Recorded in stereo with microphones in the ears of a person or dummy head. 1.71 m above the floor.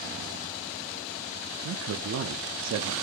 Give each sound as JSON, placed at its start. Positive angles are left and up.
{"t": 1.6, "sound": "a man speaking", "side_deg": -75, "distance_m": 0.6}